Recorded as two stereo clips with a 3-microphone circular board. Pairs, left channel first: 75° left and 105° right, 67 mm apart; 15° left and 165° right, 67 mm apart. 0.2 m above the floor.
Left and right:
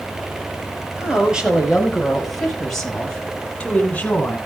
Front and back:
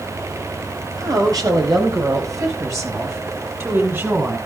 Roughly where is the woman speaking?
Behind.